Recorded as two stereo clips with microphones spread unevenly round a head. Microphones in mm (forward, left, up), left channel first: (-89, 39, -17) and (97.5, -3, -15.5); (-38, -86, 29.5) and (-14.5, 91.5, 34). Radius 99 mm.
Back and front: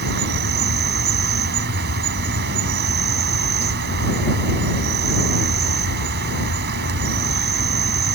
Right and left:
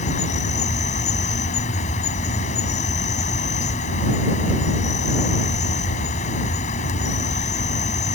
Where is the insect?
45° right.